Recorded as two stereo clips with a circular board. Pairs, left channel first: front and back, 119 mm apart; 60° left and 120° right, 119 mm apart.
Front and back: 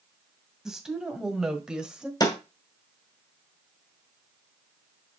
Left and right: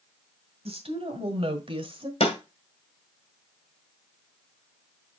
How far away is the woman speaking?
About 2 m.